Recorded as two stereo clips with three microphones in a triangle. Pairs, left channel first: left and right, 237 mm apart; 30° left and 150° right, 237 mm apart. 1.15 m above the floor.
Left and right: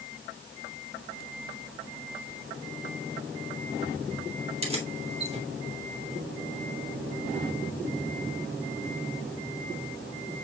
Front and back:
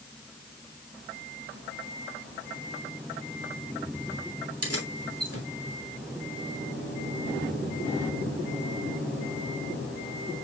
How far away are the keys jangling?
About 3 m.